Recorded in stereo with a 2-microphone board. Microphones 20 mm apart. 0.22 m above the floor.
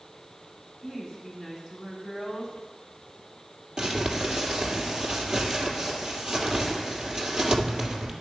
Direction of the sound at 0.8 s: 10° right (ahead or behind).